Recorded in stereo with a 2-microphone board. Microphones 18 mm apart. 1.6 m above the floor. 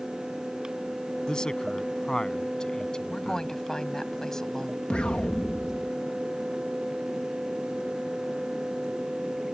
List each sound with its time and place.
1.3 s a man speaking: 35° left (ahead or behind)
3.1 s a woman speaking: 25° left (ahead or behind)
4.9 s an explosion: 85° left